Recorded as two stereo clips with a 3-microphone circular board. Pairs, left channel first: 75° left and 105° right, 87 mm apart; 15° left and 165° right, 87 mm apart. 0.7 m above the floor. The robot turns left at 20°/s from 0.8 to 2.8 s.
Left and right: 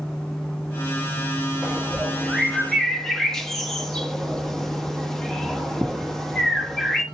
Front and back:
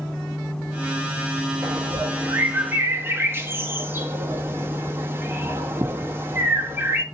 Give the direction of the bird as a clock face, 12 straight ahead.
6 o'clock.